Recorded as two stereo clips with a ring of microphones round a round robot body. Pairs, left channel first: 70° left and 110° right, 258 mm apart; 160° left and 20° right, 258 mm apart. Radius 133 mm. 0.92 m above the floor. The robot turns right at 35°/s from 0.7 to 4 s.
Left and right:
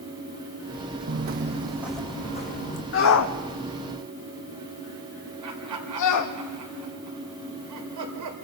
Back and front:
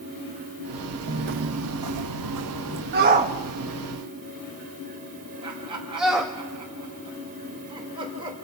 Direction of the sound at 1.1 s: 75° right.